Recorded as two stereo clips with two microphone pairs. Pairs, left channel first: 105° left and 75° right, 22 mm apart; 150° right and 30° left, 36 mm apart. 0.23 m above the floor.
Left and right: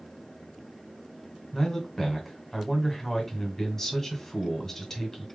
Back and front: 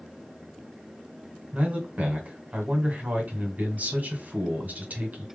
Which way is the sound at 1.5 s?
40° left.